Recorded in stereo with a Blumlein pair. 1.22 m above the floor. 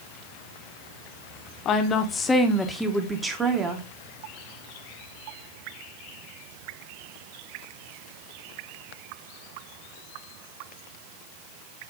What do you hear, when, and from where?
1.6 s a woman speaking: 30° left, 1.1 m; by 3.9 s 25° right, 1.4 m